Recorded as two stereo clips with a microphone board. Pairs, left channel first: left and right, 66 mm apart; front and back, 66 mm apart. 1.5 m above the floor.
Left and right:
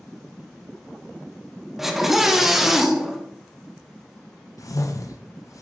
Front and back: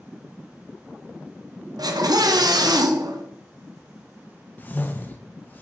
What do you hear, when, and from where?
1.8 s a scream: 175° right, 1.0 m
4.6 s a whoosh: 60° left, 0.9 m